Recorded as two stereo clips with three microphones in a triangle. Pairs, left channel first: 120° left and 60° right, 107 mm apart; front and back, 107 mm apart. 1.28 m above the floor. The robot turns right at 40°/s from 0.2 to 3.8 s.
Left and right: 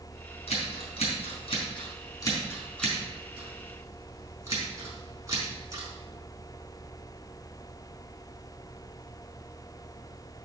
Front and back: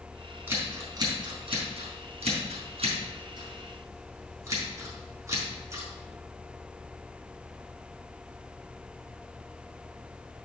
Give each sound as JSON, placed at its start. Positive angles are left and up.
{"t": 0.5, "sound": "scissors", "azimuth_deg": 110, "distance_m": 4.0}